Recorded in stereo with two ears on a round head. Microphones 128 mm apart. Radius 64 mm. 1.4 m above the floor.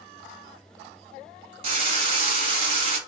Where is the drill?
35° right (ahead or behind), 1.1 m.